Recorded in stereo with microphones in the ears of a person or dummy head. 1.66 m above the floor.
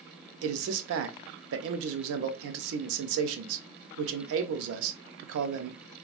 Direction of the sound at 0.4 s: 75° right (ahead or behind).